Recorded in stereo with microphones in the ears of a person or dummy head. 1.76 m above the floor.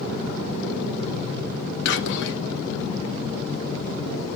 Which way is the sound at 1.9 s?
75° left (ahead or behind).